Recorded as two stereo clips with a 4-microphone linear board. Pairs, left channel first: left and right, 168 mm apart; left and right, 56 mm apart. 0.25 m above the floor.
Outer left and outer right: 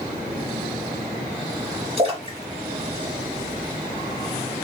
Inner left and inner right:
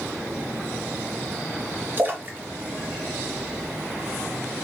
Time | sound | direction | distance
2.0 | a splash | 40° right (ahead or behind) | 1.2 m